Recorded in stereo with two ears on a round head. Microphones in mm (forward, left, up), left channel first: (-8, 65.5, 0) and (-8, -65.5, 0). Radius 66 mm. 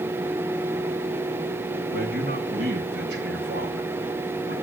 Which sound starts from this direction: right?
A man speaking, at 1.9 s.